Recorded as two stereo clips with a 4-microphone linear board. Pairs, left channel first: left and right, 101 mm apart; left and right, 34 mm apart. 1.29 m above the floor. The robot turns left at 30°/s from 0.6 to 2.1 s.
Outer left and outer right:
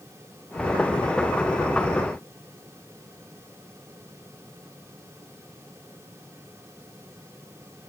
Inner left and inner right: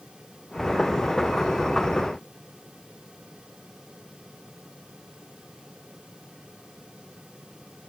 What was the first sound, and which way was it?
Only background noise.